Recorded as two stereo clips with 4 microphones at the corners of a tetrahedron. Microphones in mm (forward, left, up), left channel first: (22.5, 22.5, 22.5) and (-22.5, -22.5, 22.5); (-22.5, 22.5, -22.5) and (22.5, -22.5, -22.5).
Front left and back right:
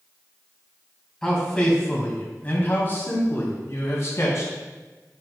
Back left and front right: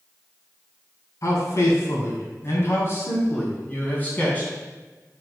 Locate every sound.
1.2 s a man speaking: 125° left, 2.5 m; by 4.5 s 70° left, 3 m